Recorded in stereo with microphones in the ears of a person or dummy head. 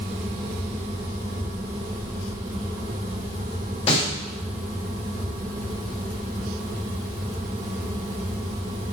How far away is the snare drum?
About 5.5 m.